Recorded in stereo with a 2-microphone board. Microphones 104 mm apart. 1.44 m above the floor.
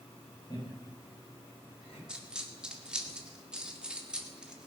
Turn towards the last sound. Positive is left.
turn(degrees=-10)  # may be behind; listen again after turning